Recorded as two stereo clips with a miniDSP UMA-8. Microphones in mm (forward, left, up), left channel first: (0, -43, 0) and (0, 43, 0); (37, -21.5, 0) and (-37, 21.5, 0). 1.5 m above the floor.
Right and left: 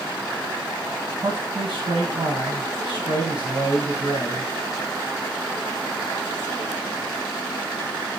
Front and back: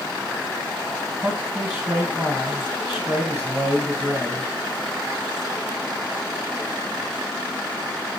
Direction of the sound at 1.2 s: 75° left.